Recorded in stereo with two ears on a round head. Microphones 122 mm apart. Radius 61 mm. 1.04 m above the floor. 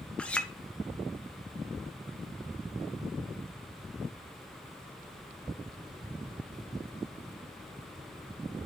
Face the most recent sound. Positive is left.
turn(degrees=10)  # may be behind; listen again after turning